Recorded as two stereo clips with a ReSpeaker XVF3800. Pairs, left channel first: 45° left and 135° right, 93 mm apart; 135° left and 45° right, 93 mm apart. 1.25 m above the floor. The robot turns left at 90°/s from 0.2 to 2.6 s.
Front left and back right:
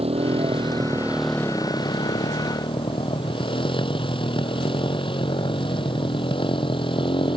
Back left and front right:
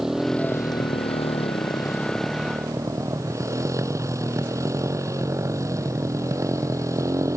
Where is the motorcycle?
130° right; by 7.4 s 15° left.